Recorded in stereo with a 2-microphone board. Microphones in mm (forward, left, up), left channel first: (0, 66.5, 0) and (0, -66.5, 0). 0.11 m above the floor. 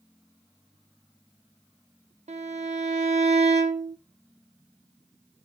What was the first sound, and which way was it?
A violin, 60° right (ahead or behind).